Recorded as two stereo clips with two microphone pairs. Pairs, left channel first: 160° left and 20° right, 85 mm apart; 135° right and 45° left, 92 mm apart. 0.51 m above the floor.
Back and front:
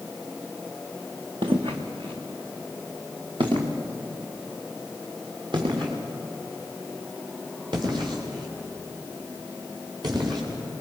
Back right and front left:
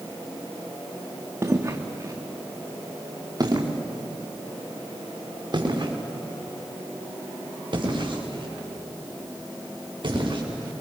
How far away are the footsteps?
About 2.5 m.